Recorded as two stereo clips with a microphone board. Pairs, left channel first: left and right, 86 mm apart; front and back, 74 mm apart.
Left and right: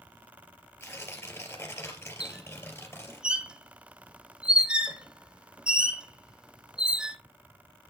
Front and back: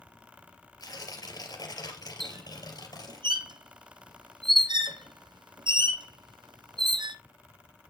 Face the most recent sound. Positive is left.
turn(degrees=-170)